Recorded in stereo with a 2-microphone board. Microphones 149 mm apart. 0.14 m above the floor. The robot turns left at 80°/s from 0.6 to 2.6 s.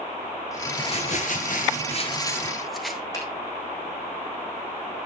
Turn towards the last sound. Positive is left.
turn(degrees=20)  # may be behind; listen again after turning